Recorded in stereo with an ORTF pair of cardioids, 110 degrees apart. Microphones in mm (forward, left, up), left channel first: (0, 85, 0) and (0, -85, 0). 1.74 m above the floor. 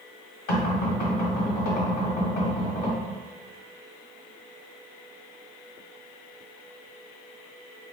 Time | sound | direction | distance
0.5 | knocking | 60° left | 1.2 m